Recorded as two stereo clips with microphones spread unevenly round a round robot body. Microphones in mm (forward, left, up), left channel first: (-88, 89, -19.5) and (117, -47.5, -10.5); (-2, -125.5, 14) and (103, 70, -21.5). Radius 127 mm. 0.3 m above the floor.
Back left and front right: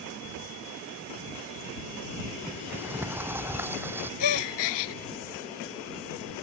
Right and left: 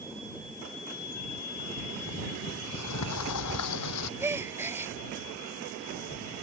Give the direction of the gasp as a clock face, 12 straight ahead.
7 o'clock.